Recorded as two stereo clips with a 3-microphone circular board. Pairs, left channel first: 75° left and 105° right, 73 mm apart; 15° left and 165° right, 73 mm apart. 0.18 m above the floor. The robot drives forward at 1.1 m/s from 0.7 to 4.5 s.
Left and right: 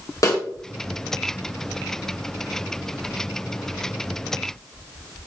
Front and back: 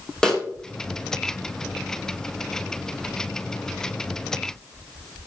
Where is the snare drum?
95° left, 2.5 m.